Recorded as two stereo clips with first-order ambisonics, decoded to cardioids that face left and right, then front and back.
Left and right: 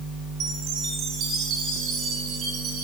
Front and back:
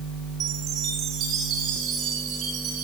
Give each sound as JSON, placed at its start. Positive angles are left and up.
{"t": 0.4, "sound": "a chime", "azimuth_deg": -135, "distance_m": 8.5}